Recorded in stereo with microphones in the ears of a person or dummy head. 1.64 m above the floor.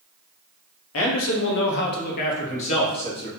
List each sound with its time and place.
0.9 s a man speaking: 85° left, 1.2 m; by 3.3 s 30° left (ahead or behind), 1.5 m